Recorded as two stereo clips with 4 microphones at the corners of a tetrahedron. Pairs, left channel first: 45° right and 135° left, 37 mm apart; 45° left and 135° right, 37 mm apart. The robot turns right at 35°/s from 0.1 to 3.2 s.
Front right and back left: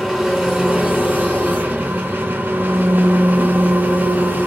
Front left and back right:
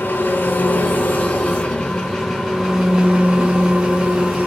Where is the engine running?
45° left, 3.5 m; by 4.5 s 155° left, 3.5 m.